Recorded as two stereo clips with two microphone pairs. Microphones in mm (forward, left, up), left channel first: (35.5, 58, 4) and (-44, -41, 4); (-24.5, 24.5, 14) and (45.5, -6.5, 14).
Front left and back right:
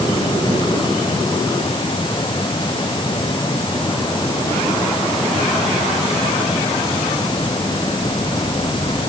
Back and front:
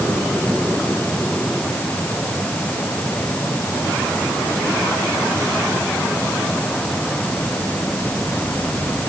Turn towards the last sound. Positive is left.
No sound to turn to.